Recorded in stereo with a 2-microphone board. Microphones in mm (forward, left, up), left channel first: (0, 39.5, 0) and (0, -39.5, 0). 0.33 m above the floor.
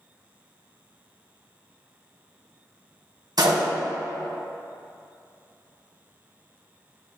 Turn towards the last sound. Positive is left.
turn(degrees=-65)  # may be behind; listen again after turning